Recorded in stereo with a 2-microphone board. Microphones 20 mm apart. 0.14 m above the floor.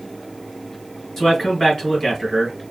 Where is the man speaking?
20° left (ahead or behind), 1.7 m.